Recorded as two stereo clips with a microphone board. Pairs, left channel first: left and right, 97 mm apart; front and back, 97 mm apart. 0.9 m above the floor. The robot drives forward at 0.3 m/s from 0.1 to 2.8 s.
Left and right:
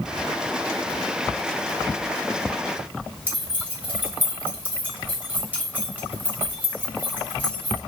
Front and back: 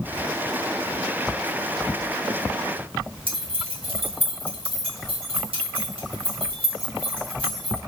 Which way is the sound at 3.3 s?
160° right.